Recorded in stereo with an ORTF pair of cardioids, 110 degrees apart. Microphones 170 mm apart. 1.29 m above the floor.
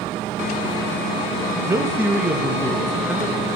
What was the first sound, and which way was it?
A man speaking, 20° right.